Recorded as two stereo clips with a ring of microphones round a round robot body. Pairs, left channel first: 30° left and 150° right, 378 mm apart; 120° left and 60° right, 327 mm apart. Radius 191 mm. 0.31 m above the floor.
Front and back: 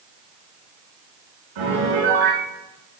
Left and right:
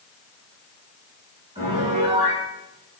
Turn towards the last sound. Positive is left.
turn(degrees=-135)